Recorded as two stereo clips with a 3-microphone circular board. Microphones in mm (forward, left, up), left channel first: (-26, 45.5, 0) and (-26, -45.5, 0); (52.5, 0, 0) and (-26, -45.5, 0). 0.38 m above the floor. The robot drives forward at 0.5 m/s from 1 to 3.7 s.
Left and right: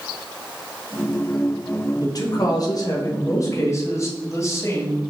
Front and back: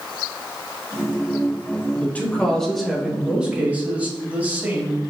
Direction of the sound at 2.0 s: 95° left.